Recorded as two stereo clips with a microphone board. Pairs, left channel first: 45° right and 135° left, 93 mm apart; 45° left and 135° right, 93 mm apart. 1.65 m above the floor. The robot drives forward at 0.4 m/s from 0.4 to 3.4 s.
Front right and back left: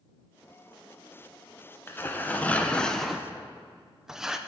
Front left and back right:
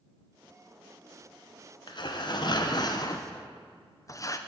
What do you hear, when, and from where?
1.9 s tearing paper: 20° left, 1.0 m; by 4.4 s 55° left, 0.6 m